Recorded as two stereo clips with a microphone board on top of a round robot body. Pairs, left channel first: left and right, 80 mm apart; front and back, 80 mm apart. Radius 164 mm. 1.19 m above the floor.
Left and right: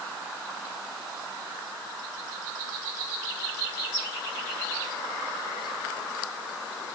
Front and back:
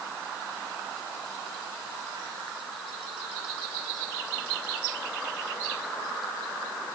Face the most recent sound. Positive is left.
No sound to turn to.